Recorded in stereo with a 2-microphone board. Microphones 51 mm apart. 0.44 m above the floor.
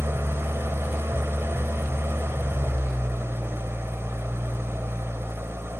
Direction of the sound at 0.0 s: 55° right (ahead or behind).